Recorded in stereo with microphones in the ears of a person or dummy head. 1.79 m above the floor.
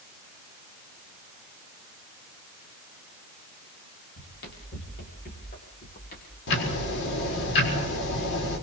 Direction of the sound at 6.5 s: 65° left (ahead or behind).